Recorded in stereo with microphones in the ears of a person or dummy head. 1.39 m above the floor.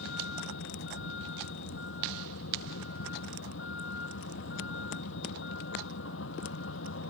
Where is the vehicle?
85° left.